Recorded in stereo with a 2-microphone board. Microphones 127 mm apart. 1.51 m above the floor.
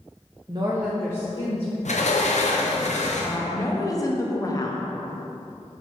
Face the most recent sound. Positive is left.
turn(degrees=30)  # may be behind; listen again after turning